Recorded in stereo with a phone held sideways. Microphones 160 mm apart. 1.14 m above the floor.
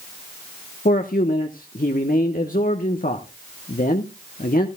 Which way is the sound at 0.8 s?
60° left (ahead or behind).